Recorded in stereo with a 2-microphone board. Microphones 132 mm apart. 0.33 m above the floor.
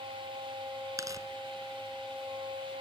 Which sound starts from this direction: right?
Tearing paper, at 1.0 s.